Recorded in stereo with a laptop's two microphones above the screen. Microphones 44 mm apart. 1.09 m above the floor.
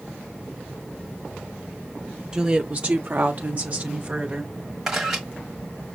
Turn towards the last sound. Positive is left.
turn(degrees=-10)  # may be behind; listen again after turning